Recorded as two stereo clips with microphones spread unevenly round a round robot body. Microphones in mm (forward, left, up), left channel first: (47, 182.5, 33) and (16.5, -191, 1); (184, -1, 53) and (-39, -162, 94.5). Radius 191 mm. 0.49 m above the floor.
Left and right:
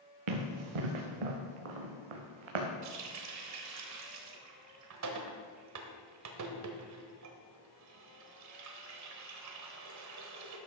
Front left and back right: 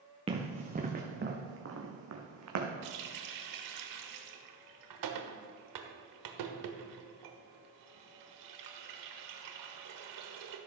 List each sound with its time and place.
0.3 s running footsteps: 75° right, 2.5 m; by 2.7 s 125° right, 2 m
2.8 s a running tap: 145° right, 1.2 m